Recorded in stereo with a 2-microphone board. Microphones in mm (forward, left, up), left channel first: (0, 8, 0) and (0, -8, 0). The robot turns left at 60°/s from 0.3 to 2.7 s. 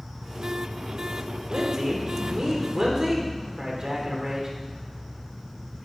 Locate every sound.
1.5 s a man speaking: 65° right, 1.9 m; by 4.5 s 135° right, 1.9 m